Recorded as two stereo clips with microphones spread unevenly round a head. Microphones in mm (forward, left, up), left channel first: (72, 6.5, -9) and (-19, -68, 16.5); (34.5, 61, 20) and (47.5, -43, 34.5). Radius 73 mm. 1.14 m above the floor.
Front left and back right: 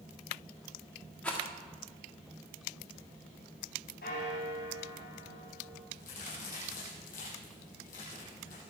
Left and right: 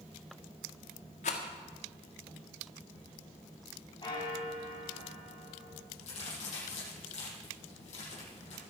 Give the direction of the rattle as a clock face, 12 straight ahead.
8 o'clock.